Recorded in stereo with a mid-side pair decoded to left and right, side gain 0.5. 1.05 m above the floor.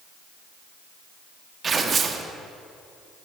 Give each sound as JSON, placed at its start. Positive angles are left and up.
{"t": 1.6, "sound": "tearing paper", "azimuth_deg": -40, "distance_m": 1.0}